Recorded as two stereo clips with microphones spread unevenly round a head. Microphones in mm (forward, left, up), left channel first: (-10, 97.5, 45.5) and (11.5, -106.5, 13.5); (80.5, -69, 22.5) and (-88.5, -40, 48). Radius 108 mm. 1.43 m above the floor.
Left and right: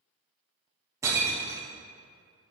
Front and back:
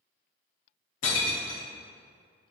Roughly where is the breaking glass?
Ahead.